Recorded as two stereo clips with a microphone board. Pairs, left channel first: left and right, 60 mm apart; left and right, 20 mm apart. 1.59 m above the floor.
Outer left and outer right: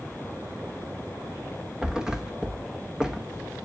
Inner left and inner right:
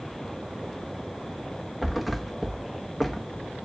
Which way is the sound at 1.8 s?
10° right (ahead or behind).